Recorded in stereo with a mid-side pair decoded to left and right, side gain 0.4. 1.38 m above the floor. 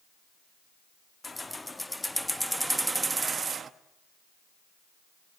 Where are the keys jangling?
25° left, 1.9 m; by 3.7 s 55° right, 1.3 m.